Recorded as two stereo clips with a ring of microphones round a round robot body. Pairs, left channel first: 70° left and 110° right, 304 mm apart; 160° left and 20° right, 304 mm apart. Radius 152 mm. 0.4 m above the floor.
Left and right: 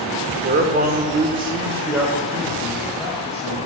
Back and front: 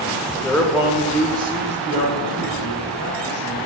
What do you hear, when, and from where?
0.4 s a man speaking: 130° right, 1.0 m; by 3.6 s 10° right, 1.9 m